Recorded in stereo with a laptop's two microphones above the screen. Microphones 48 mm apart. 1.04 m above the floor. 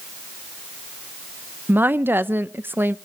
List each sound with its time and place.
1.7 s a woman speaking: 45° right (ahead or behind), 0.5 m